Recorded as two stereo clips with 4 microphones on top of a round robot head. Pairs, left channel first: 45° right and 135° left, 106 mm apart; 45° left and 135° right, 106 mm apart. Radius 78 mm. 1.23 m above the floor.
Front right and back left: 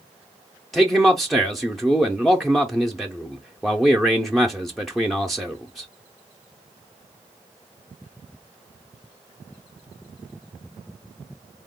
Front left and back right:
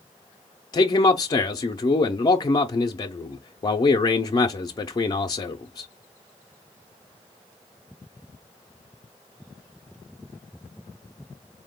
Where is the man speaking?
45° left, 0.5 m.